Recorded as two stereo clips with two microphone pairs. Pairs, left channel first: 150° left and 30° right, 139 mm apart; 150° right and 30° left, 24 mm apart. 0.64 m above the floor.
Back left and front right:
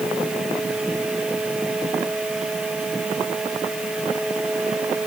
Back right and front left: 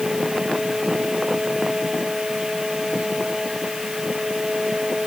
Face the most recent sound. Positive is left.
No sound to turn to.